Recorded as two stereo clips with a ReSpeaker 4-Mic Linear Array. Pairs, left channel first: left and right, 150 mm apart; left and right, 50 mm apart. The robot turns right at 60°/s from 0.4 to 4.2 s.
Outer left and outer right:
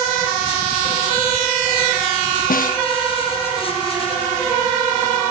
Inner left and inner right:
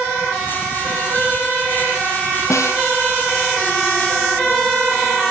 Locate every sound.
2.5 s a snare drum: 70° left (ahead or behind), 0.8 m; by 2.8 s 60° left (ahead or behind), 0.8 m